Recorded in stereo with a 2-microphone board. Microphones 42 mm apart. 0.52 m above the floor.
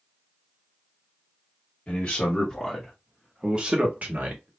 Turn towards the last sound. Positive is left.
turn(degrees=-50)  # may be behind; listen again after turning